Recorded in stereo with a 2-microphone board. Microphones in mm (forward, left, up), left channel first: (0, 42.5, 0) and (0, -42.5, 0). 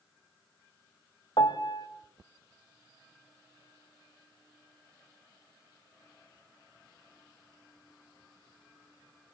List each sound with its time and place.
1.4 s a piano: 55° left (ahead or behind), 0.9 m